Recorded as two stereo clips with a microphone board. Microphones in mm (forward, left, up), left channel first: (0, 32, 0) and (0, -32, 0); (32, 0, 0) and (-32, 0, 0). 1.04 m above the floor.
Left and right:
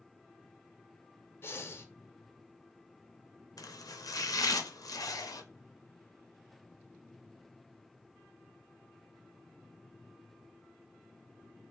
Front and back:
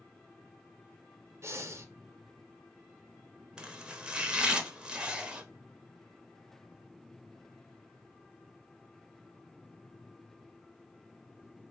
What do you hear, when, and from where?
1.4 s breathing: 140° left, 0.5 m
3.6 s chopping: 105° left, 0.6 m